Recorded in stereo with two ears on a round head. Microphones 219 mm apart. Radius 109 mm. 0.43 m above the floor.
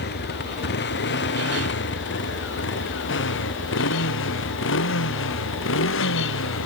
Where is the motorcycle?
45° left (ahead or behind); by 6.7 s 55° left (ahead or behind).